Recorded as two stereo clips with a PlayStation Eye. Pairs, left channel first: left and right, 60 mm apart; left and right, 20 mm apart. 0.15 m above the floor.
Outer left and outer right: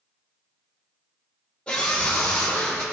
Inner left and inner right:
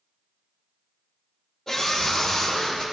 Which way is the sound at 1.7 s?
15° left (ahead or behind).